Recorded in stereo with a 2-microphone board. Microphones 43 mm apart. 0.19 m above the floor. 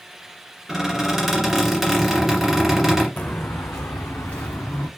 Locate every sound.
0.7 s a squeak: 5° right (ahead or behind), 1.3 m
3.2 s footsteps: 40° left (ahead or behind), 0.5 m; by 4.9 s 75° left (ahead or behind), 1.0 m